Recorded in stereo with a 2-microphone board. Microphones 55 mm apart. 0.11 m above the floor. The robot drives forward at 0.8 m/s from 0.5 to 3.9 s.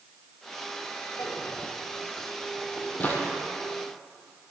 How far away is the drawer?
About 0.9 m.